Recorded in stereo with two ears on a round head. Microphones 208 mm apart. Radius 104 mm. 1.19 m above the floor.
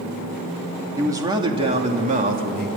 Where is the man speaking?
15° right (ahead or behind), 2.5 m; by 2.7 s 40° right (ahead or behind), 3 m.